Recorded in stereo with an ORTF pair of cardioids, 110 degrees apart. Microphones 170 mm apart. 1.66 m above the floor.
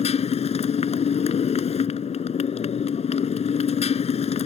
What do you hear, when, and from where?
0.0 s a motorcycle: 40° left